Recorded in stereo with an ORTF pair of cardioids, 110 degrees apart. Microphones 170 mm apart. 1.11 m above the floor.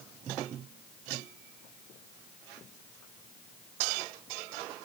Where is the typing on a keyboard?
No typing on a keyboard in this recording.